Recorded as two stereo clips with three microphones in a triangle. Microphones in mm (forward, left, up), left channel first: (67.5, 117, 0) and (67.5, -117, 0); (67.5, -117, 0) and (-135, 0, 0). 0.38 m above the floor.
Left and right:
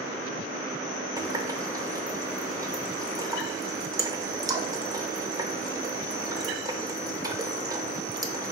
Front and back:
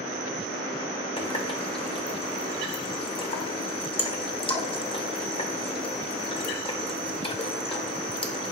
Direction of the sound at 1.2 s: 40° right.